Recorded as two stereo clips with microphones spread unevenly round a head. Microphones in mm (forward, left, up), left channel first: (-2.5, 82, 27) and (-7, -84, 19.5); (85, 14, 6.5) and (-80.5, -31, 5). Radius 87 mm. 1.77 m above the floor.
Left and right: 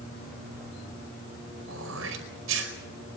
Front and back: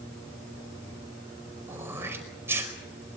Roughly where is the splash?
No splash in this recording.